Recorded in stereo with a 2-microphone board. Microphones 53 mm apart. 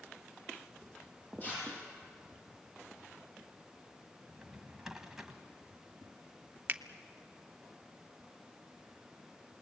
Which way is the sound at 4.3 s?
10° right (ahead or behind).